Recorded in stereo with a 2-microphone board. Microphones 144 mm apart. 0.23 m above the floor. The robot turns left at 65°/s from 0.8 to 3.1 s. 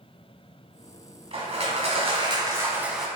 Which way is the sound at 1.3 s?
65° right.